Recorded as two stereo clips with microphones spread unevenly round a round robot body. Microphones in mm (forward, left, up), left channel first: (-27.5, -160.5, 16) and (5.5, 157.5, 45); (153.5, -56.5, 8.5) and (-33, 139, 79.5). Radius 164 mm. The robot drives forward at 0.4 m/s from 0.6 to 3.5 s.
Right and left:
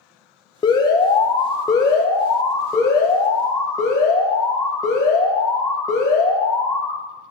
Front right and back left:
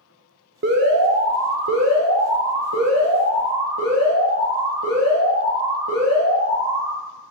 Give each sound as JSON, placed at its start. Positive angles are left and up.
{"t": 0.6, "sound": "an alarm", "azimuth_deg": -165, "distance_m": 0.6}